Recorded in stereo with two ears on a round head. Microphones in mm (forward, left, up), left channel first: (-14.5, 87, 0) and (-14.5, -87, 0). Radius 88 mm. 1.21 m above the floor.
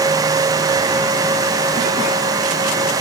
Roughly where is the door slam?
No door slam in this recording.